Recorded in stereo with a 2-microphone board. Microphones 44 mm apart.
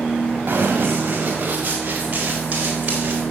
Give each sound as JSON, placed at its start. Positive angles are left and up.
{"t": 0.5, "sound": "running footsteps", "side_deg": -40, "distance_m": 3.5}